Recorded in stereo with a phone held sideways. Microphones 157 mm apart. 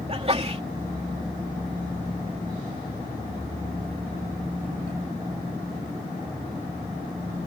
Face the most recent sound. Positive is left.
turn(degrees=-40)  # may be behind; listen again after turning